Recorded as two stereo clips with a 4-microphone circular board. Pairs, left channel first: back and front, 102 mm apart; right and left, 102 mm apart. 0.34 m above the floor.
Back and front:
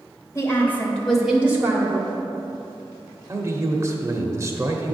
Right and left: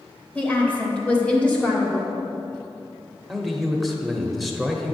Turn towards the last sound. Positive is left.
turn(degrees=0)